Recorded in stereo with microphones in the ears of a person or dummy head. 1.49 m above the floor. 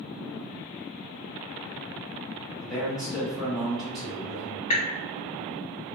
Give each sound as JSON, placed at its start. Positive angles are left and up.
{"t": 2.6, "sound": "a man speaking", "side_deg": 0, "distance_m": 1.6}
{"t": 4.7, "sound": "dripping", "side_deg": 40, "distance_m": 0.8}